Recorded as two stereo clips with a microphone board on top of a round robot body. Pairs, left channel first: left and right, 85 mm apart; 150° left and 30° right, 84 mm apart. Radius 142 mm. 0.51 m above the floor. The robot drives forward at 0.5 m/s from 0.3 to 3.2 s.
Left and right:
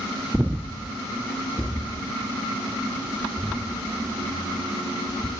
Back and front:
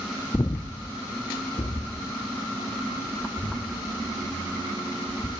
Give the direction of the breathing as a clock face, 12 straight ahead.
5 o'clock.